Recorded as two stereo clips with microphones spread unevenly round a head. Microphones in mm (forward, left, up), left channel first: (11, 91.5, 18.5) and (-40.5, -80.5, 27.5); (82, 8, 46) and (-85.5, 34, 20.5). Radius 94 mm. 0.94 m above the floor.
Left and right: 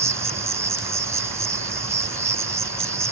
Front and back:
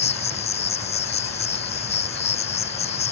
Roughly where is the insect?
Ahead right.